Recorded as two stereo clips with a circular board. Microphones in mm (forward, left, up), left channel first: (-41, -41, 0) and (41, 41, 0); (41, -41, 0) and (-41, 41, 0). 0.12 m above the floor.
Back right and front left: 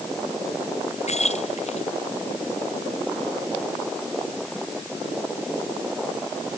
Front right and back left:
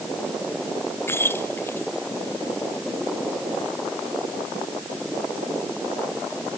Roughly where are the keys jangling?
Behind right.